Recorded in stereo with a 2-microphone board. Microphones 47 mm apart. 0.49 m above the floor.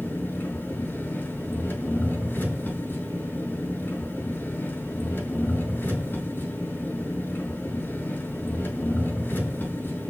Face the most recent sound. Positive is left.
turn(degrees=45)  # may be behind; listen again after turning